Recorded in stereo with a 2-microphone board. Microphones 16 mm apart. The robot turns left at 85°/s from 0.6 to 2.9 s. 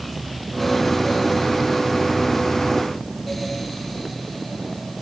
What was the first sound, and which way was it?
Only background noise.